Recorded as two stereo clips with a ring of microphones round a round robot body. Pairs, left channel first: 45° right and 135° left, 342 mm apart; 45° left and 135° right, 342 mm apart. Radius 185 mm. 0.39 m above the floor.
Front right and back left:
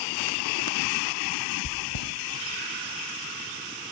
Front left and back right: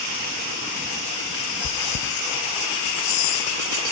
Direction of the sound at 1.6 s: 10° right.